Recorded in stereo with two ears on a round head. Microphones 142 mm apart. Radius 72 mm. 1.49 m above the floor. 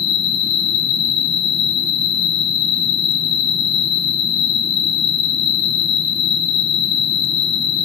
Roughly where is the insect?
Left.